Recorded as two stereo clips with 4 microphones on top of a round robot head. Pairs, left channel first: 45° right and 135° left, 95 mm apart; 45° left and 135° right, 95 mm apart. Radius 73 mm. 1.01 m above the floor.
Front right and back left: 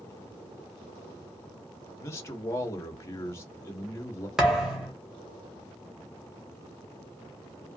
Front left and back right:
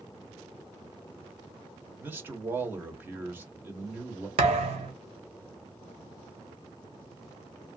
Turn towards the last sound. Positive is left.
turn(degrees=-140)